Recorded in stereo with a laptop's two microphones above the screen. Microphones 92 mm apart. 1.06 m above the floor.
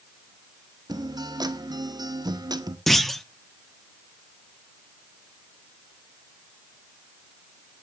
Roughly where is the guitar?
Right.